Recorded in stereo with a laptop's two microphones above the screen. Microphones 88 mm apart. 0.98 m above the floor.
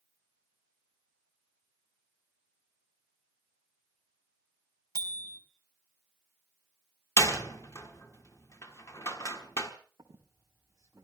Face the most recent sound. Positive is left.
turn(degrees=-40)  # may be behind; listen again after turning